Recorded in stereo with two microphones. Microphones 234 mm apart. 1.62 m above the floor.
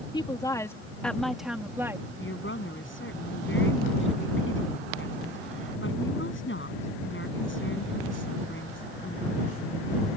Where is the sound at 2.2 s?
55° left (ahead or behind).